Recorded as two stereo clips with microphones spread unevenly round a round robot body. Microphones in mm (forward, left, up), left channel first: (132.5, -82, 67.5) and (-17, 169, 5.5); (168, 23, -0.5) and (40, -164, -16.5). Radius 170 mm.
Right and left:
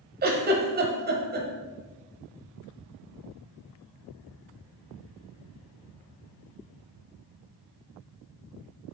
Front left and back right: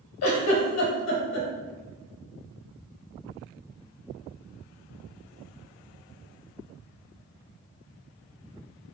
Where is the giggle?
65° left, 0.7 m.